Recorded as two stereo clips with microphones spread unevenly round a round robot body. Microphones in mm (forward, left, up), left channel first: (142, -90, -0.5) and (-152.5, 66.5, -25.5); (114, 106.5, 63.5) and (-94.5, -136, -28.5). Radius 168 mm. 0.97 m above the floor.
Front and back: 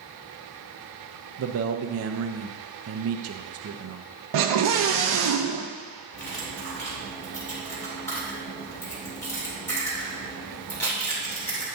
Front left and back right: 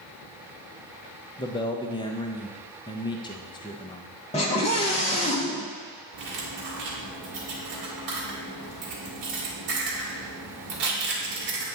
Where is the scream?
125° left, 0.5 m.